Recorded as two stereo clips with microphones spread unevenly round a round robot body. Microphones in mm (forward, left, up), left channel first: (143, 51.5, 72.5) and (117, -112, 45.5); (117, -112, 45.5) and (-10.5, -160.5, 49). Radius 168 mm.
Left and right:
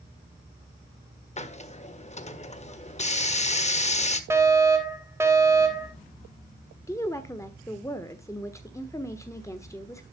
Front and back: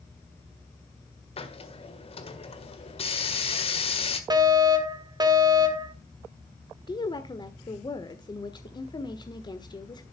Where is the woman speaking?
5° left, 1.4 m.